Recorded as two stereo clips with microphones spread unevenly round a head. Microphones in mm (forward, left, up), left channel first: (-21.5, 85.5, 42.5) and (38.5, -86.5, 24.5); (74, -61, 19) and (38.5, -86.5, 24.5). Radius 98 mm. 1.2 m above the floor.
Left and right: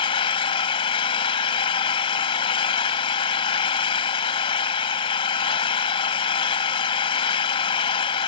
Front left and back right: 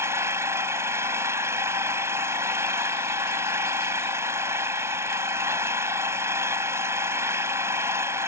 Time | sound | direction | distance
0.0 | an engine running | 170° left | ?